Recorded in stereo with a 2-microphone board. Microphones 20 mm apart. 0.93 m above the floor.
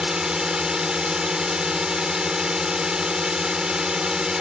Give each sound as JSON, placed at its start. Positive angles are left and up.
{"t": 0.0, "sound": "a drone", "side_deg": -35}